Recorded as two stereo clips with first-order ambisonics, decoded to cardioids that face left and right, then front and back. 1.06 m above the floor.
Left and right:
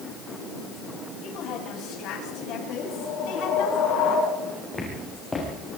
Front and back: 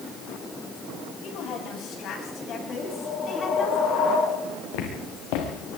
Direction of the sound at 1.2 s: 40° left.